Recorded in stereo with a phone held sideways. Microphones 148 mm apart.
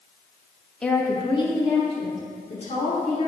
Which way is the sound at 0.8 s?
5° left (ahead or behind).